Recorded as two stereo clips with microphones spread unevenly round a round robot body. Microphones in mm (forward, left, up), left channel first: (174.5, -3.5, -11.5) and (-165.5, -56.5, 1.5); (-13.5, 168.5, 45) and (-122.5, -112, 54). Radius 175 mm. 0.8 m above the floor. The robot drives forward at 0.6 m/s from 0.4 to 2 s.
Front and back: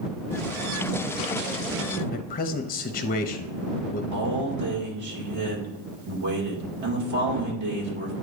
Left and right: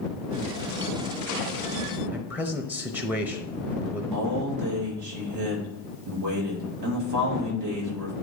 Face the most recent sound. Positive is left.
turn(degrees=-135)